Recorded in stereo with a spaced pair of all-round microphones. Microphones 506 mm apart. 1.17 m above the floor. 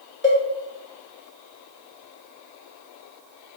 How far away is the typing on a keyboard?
I don't hear typing on a keyboard.